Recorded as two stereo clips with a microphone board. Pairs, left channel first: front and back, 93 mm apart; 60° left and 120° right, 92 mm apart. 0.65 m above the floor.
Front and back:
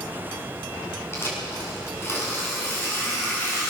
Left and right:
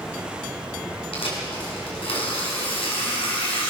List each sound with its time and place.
1.1 s tearing paper: 65° left, 6.5 m